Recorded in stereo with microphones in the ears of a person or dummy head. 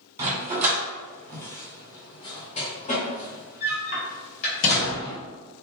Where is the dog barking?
15° right (ahead or behind), 1.5 m; by 5.2 s 65° left (ahead or behind), 2.5 m.